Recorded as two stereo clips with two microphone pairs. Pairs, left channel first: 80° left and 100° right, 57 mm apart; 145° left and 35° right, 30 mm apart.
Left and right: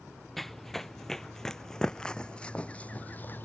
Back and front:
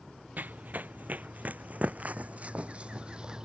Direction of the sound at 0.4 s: 5° right.